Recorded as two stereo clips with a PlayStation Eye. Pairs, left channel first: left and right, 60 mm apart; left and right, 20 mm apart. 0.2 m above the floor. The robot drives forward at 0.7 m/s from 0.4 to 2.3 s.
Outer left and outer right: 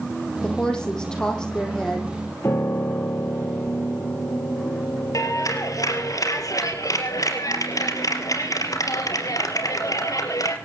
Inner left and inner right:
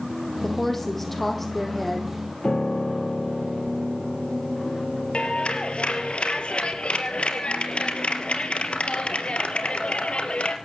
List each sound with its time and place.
0.4 s a woman speaking: 15° left (ahead or behind), 6.5 m
2.4 s a piano: 45° left (ahead or behind), 3.5 m
5.1 s a clap: 70° left (ahead or behind), 3.5 m